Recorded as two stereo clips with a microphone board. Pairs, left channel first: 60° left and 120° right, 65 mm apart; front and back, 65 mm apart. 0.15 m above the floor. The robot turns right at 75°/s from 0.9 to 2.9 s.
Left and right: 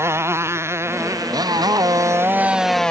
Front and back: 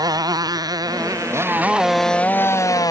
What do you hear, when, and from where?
0.0 s a motorcycle: 170° right; by 2.9 s 20° right